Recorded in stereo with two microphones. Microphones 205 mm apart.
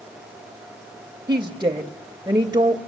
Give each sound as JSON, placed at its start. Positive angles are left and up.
{"t": 1.3, "sound": "a woman speaking", "side_deg": -20, "distance_m": 1.0}